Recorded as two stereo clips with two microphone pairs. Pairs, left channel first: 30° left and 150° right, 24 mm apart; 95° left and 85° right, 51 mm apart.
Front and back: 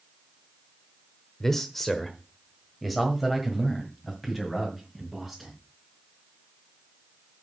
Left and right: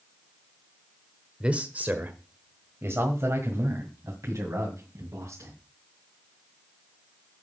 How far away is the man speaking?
About 0.9 m.